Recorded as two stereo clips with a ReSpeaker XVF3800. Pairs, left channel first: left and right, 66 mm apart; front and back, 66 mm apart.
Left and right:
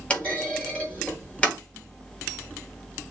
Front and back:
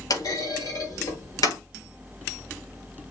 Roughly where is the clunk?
Ahead.